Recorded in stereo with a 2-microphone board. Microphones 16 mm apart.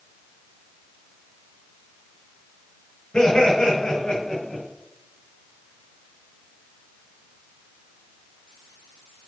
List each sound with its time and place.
3.1 s laughter: 70° left (ahead or behind), 6.5 m; by 4.6 s 65° left (ahead or behind), 6 m